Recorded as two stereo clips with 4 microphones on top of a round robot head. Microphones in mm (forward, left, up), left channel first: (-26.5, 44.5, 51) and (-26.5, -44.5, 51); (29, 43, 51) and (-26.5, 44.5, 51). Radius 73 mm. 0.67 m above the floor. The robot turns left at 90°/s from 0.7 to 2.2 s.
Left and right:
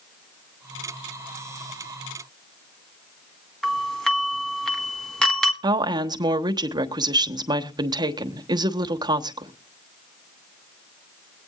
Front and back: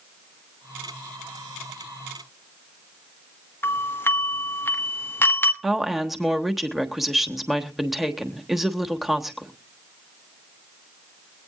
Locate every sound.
3.6 s a doorbell: 10° left, 1.9 m
5.6 s a woman speaking: 95° right, 1.3 m